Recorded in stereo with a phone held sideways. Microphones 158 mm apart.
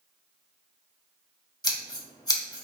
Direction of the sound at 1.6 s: 25° left (ahead or behind).